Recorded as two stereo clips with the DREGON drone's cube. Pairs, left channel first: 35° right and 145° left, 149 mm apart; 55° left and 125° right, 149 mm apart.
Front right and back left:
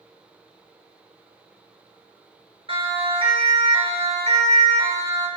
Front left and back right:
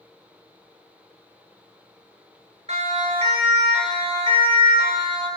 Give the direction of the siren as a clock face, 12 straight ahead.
5 o'clock.